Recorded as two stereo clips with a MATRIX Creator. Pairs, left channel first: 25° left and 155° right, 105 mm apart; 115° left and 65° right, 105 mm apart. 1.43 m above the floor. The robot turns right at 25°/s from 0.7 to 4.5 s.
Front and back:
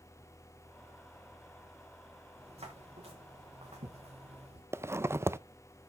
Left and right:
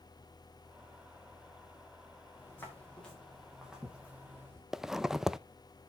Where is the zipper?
150° right, 0.6 m.